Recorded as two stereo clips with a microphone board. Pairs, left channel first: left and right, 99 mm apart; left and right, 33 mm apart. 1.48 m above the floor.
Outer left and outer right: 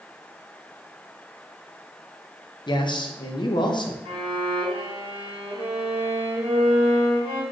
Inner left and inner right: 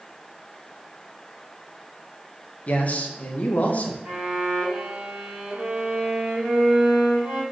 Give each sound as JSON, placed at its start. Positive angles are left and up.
{"t": 2.7, "sound": "a man speaking", "side_deg": 50, "distance_m": 0.6}
{"t": 4.0, "sound": "a violin", "side_deg": -60, "distance_m": 1.2}